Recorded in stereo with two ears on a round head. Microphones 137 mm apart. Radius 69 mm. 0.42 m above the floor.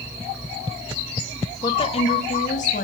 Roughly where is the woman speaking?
Left.